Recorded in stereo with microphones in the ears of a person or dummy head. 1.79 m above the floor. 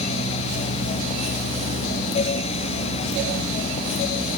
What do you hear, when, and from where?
Only background noise.